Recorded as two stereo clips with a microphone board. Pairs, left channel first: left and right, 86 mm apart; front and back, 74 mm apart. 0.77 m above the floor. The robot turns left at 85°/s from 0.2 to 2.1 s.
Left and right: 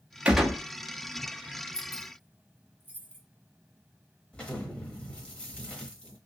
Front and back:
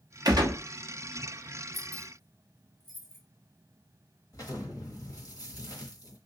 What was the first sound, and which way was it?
A gunshot, 165° right.